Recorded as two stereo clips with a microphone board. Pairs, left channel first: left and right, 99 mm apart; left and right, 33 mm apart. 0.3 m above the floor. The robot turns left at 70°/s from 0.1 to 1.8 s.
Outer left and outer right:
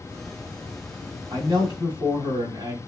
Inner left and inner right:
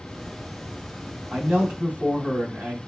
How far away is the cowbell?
I don't hear a cowbell.